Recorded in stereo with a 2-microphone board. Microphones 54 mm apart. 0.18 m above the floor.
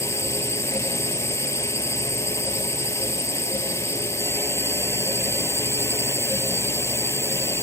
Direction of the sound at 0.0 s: 65° left (ahead or behind).